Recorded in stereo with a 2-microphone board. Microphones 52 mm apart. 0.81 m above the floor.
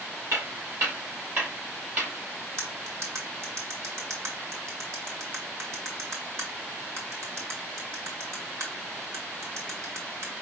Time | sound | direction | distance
0.3 | footsteps | 55° right (ahead or behind) | 3 m
2.6 | cutlery clinking | 65° right (ahead or behind) | 1.8 m